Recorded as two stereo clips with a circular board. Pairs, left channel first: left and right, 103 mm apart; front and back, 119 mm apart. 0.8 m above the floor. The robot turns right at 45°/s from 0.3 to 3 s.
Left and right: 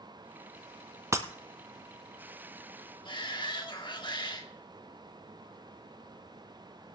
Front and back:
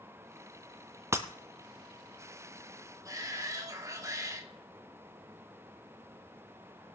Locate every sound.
1.1 s breaking glass: 130° right, 0.9 m; by 1.3 s 125° right, 0.9 m
3.0 s a shout: 120° left, 2.5 m